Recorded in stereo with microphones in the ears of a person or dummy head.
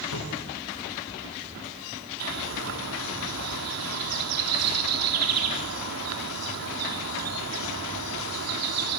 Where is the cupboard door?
85° left, 6.5 m.